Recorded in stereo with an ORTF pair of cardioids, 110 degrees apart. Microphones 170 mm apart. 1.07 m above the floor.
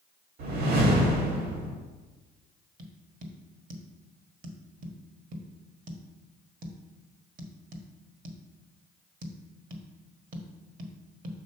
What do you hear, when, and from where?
0.4 s a whoosh: 70° right, 1.9 m
2.8 s tapping: 55° right, 1.3 m